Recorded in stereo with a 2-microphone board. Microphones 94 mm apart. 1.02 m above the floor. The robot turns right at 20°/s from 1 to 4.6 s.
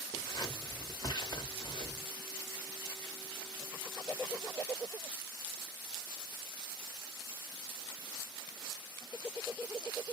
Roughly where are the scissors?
Left.